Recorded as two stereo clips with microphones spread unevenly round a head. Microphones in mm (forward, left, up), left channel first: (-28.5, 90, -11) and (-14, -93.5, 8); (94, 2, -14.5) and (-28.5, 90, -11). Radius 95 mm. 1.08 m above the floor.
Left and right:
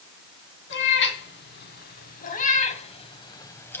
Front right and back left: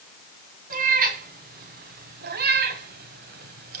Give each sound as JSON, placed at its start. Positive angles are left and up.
{"t": 0.7, "sound": "a cat meowing", "azimuth_deg": 120, "distance_m": 3.0}